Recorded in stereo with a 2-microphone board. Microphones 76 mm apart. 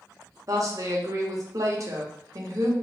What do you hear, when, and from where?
0.5 s a woman speaking: 45° right (ahead or behind), 0.8 m